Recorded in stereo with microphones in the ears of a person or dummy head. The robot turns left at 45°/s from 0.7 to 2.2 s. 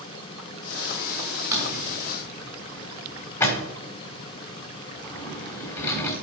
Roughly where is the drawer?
Centre.